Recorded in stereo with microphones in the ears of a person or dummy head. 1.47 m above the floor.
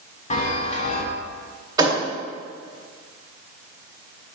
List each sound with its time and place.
0.3 s a chime: 40° left (ahead or behind), 1.0 m
1.8 s a thud: 20° right (ahead or behind), 2 m